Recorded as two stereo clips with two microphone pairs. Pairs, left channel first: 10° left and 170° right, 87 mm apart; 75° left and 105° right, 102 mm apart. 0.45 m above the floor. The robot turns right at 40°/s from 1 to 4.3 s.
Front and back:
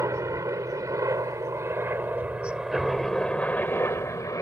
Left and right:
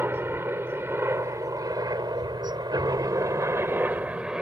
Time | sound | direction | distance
0.0 | a helicopter | 155° right | ?